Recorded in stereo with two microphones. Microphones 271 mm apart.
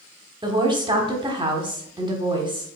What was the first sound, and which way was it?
A woman speaking, 15° right (ahead or behind).